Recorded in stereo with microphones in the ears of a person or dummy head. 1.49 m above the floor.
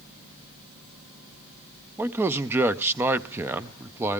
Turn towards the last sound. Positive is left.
turn(degrees=-10)  # may be behind; listen again after turning